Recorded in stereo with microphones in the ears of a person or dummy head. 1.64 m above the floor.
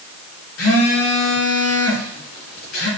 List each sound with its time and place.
0.6 s a phone buzzing: 80° left, 2.5 m